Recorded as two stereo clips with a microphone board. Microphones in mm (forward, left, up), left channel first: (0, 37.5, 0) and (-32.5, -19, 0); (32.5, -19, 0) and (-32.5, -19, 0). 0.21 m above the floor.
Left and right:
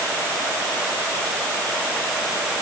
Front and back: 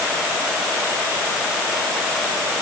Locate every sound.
Only background noise.